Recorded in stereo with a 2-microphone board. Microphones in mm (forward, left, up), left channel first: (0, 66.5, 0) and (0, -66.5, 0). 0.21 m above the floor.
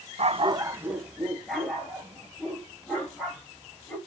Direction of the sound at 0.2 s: 55° right (ahead or behind).